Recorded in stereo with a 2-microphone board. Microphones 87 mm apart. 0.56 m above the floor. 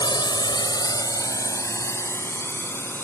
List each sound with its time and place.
0.0 s a drone: 60° left (ahead or behind); by 3.0 s 25° left (ahead or behind)